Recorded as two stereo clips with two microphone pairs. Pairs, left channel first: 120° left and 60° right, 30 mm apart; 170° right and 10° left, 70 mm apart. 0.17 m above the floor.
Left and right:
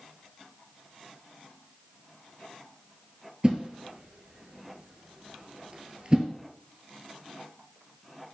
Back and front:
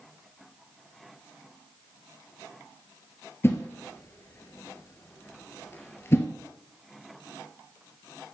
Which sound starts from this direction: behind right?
A whoosh, at 3.4 s.